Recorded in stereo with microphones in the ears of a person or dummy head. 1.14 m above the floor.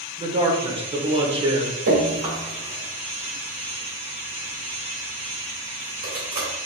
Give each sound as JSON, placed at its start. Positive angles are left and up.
{"t": 0.2, "sound": "a man speaking", "side_deg": -25, "distance_m": 0.9}
{"t": 1.9, "sound": "dripping", "side_deg": -75, "distance_m": 2.0}